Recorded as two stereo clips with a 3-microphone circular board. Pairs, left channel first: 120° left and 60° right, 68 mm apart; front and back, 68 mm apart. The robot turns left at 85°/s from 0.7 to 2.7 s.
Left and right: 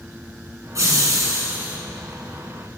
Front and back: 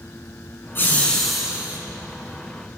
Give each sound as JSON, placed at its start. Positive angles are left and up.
{"t": 0.8, "sound": "laughter", "azimuth_deg": -45, "distance_m": 1.8}